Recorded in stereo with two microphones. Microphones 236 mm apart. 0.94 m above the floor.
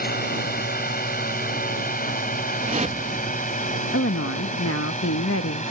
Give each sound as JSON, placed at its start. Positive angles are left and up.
{"t": 0.0, "sound": "a drone", "side_deg": 40}
{"t": 2.6, "sound": "a whoosh", "side_deg": -30}
{"t": 3.9, "sound": "a woman speaking", "side_deg": 65}